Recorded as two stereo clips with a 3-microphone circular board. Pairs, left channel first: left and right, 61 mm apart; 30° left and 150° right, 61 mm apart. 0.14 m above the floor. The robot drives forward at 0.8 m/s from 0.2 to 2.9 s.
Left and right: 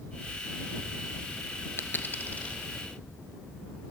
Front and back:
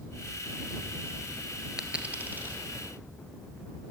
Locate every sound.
1.8 s a dropped coin: 130° left, 0.7 m; by 2.6 s 155° left, 1.2 m